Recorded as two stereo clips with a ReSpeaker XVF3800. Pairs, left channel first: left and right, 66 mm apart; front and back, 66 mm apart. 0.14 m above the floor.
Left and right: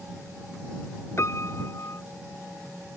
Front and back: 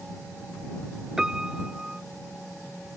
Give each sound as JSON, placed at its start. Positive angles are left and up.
{"t": 1.2, "sound": "a piano", "azimuth_deg": 105}